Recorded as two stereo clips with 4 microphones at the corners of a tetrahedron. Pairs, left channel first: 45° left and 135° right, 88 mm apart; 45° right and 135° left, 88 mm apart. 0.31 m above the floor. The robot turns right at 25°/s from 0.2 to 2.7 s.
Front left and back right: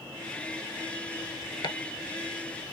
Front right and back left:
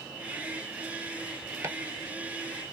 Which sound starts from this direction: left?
Chopping, at 1.6 s.